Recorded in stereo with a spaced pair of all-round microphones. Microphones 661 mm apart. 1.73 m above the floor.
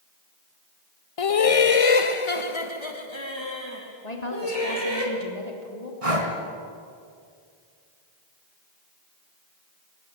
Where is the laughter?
55° left (ahead or behind), 0.7 m; by 5.0 s 35° left (ahead or behind), 4.5 m.